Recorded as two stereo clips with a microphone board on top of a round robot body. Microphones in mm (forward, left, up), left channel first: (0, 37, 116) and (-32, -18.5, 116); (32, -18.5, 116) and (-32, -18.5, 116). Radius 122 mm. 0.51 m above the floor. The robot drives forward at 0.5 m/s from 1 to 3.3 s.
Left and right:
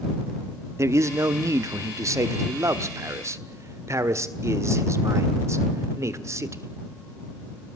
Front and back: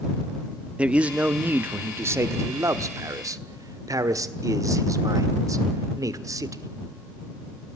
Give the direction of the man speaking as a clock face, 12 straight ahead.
4 o'clock.